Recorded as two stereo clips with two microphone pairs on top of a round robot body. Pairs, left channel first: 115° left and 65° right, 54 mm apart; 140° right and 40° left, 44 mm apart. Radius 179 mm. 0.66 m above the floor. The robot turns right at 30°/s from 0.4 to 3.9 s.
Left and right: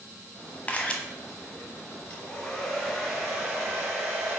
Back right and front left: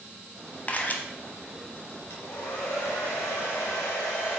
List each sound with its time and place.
0.7 s a camera shutter: 175° left, 1.0 m; by 1.0 s 175° right, 1.0 m
2.1 s a hair dryer: 175° left, 0.7 m; by 4.4 s 130° right, 0.7 m